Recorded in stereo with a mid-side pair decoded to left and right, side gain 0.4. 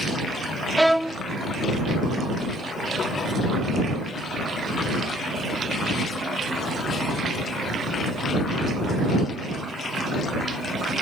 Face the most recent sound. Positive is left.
turn(degrees=-5)